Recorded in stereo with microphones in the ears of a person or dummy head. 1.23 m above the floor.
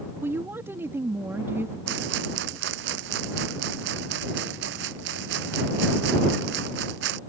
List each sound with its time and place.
0.2 s a woman speaking: 20° right (ahead or behind)
1.9 s a rattle: 70° right (ahead or behind)